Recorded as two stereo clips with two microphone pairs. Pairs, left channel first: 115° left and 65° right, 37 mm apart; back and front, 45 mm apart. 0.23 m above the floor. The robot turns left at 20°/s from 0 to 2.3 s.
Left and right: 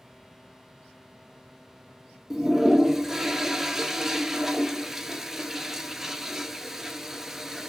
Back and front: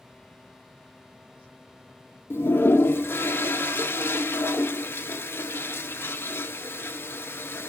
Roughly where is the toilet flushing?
Behind right.